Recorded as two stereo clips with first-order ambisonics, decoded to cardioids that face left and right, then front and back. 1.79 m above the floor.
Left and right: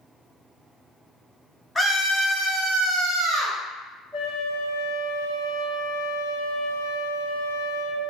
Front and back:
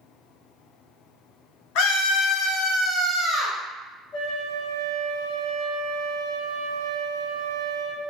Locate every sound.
1.8 s a scream: 5° left, 0.6 m; by 3.6 s 85° right, 1.1 m
4.1 s a flute: 50° right, 1.3 m